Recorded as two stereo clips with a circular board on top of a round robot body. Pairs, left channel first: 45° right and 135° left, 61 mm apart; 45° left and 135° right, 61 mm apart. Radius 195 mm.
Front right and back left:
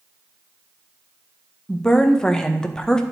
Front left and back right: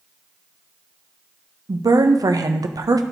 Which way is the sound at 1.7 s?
125° right.